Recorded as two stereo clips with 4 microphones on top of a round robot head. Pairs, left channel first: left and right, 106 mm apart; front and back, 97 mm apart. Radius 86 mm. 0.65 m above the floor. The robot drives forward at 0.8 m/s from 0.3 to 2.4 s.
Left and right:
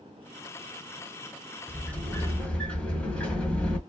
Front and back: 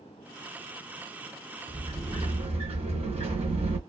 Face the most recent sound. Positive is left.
turn(degrees=170)